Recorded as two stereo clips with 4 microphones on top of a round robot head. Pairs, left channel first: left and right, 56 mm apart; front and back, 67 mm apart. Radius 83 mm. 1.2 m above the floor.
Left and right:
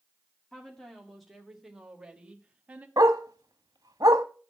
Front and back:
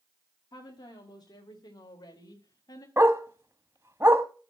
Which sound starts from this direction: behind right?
A dog barking, at 3.0 s.